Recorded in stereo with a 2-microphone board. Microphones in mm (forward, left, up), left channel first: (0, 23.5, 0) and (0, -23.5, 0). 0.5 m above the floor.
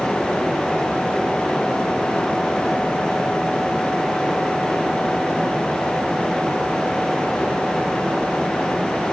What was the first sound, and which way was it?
Only background noise.